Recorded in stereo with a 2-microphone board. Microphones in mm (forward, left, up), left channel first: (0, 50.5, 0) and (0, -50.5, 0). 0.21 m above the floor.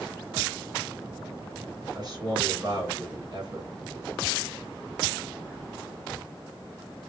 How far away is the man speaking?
About 2.5 m.